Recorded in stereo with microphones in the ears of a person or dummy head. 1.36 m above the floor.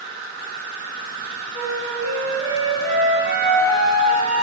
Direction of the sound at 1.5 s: 20° right (ahead or behind).